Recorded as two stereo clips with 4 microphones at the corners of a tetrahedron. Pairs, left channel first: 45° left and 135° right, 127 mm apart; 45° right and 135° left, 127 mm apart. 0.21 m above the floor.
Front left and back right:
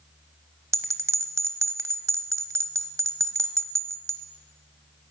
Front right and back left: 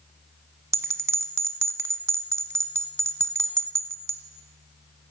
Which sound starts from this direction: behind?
A bell, at 0.7 s.